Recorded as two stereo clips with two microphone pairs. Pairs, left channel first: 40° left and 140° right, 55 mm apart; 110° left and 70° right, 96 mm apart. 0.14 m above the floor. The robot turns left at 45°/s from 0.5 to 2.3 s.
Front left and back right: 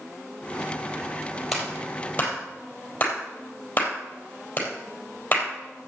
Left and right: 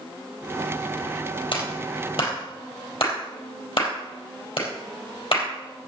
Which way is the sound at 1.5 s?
135° left.